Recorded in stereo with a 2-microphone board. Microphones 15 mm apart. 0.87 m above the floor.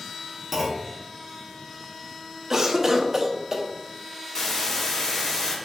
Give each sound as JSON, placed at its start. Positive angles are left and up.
{"t": 0.5, "sound": "a clunk", "side_deg": -25, "distance_m": 0.7}
{"t": 2.5, "sound": "a cough", "side_deg": -30, "distance_m": 0.6}
{"t": 4.3, "sound": "a hiss", "side_deg": 40, "distance_m": 0.8}